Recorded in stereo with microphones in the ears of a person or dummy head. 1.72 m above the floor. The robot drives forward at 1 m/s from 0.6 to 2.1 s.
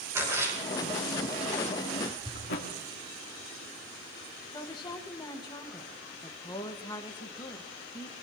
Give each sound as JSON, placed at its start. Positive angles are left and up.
{"t": 0.1, "sound": "a splash", "side_deg": -15, "distance_m": 6.0}
{"t": 2.4, "sound": "a thud", "side_deg": 50, "distance_m": 1.8}
{"t": 4.5, "sound": "a woman speaking", "side_deg": 20, "distance_m": 1.8}